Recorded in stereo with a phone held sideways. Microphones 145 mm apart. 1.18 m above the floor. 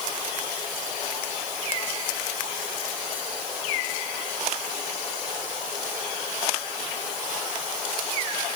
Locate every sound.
Only background noise.